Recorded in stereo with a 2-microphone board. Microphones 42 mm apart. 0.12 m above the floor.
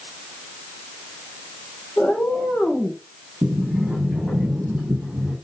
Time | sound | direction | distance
2.0 | a cat meowing | 55° left (ahead or behind) | 3 m
3.4 | a sliding door | 35° right (ahead or behind) | 5.5 m